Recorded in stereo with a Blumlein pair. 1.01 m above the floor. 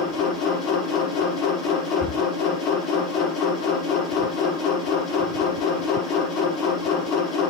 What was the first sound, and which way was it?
A machine running, 25° left.